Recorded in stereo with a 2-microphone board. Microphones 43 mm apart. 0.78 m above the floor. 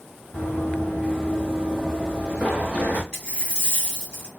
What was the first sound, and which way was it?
Running footsteps, 35° left (ahead or behind).